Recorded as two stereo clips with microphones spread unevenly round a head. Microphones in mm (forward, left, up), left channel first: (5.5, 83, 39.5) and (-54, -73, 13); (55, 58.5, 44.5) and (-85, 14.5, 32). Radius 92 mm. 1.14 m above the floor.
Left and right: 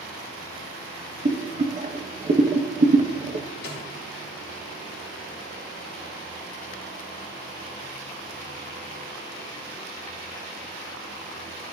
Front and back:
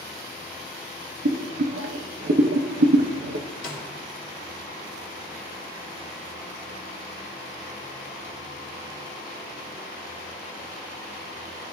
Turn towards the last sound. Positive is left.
turn(degrees=35)